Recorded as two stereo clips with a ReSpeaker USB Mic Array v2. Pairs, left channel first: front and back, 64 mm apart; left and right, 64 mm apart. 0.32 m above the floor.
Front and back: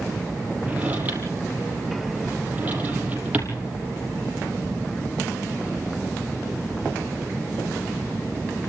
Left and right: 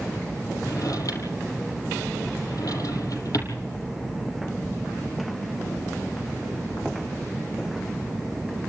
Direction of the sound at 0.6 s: 115° left.